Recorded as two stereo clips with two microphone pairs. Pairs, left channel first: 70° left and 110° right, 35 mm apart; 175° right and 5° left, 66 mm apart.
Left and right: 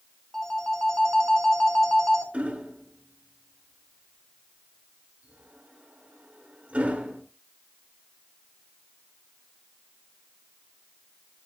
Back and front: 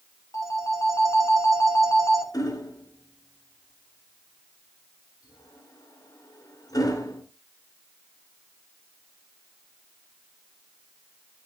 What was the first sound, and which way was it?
A phone ringing, 145° left.